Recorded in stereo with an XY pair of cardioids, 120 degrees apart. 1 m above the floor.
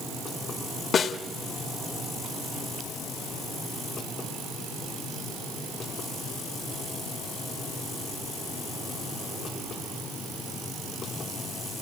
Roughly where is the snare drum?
Ahead left.